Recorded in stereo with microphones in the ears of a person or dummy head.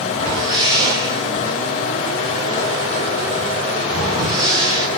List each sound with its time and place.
0.1 s a whoosh: 25° right (ahead or behind), 3.5 m